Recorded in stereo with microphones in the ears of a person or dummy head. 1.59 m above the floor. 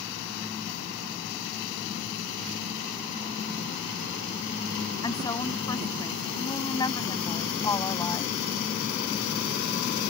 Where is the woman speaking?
20° left (ahead or behind).